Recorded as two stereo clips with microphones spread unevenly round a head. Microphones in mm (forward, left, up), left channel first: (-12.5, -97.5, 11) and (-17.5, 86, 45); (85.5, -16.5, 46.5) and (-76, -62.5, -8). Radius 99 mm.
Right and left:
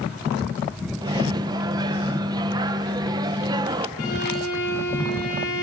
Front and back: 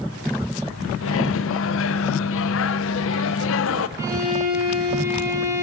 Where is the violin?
90° right, 8.5 m.